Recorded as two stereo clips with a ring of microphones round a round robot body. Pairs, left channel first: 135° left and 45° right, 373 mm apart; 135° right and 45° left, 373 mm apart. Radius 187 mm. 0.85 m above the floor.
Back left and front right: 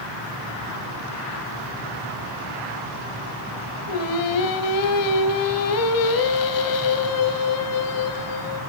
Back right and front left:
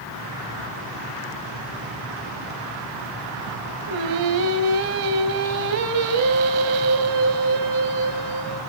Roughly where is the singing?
Left.